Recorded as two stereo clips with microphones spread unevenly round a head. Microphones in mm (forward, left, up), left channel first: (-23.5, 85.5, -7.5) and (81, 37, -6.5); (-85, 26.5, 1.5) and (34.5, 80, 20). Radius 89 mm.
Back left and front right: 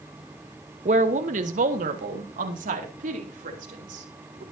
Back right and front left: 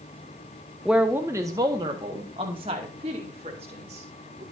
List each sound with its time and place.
0.8 s a woman speaking: 60° right, 1.0 m; by 4.4 s 30° right, 4 m